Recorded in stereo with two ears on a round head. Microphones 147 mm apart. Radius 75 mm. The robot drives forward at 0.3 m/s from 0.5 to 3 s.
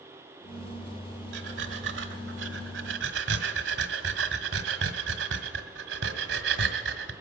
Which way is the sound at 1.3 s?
70° right (ahead or behind).